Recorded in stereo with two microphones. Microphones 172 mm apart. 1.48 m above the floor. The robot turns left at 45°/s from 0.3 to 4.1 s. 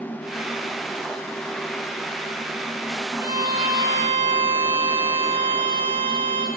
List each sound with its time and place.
3.2 s a violin: 15° right (ahead or behind), 0.6 m; by 6.5 s 30° right (ahead or behind), 0.6 m